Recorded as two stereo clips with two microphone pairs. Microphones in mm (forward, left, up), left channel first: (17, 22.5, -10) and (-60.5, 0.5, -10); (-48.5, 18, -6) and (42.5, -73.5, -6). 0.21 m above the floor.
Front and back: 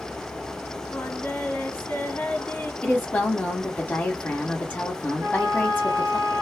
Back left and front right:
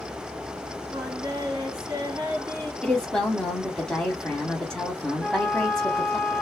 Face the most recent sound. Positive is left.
turn(degrees=-160)